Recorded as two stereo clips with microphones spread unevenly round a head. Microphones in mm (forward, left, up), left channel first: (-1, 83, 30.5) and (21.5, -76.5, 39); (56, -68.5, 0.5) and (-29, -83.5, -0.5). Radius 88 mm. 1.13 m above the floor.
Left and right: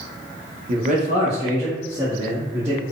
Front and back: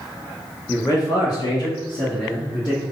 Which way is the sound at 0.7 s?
45° right.